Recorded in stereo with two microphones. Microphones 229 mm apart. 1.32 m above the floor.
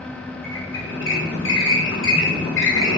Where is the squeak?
55° left (ahead or behind), 3 m.